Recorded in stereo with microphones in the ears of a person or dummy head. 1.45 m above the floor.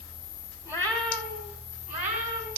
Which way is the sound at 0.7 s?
10° right (ahead or behind).